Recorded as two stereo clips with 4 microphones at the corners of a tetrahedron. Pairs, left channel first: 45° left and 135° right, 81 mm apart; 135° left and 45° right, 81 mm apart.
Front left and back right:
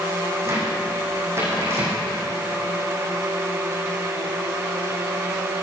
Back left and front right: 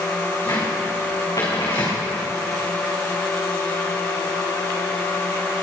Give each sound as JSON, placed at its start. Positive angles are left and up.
{"t": 0.4, "sound": "a cupboard door", "azimuth_deg": 170, "distance_m": 5.5}